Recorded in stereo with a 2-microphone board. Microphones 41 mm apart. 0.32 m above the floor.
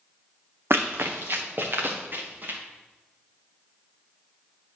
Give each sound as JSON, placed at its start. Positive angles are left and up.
{"t": 0.7, "sound": "running footsteps", "side_deg": -65, "distance_m": 0.9}